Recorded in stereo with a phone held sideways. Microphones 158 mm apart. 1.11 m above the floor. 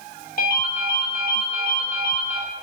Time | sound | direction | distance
0.4 | a ringtone | 60° left (ahead or behind) | 2 m